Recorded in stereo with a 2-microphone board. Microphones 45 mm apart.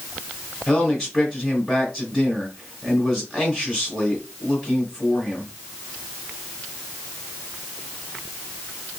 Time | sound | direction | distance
0.7 | a man speaking | 20° right (ahead or behind) | 1.2 m